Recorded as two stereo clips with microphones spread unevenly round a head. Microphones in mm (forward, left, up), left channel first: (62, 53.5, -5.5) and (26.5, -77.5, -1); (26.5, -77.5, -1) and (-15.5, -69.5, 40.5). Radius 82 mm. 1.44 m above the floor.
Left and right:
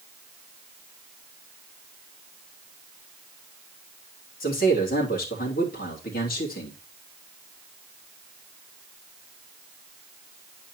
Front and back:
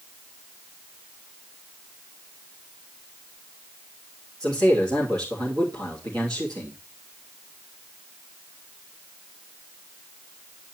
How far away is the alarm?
No alarm in this recording.